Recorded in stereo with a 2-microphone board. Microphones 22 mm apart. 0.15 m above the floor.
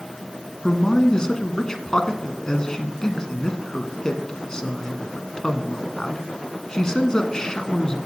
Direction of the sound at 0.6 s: 30° left (ahead or behind).